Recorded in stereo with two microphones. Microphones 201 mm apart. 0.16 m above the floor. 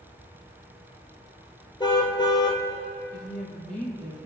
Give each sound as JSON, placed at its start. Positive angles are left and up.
{"t": 1.8, "sound": "a car horn", "side_deg": 20, "distance_m": 2.0}
{"t": 3.1, "sound": "a woman speaking", "side_deg": 5, "distance_m": 6.0}